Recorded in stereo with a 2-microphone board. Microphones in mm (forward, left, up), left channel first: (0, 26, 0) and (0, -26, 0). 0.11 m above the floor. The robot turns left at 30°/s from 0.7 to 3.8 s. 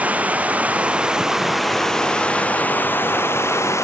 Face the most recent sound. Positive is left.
turn(degrees=115)